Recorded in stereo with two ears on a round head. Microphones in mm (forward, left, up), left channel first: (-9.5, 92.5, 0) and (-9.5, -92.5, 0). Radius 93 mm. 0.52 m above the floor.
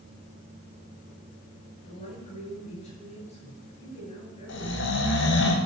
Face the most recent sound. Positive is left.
turn(degrees=65)  # may be behind; listen again after turning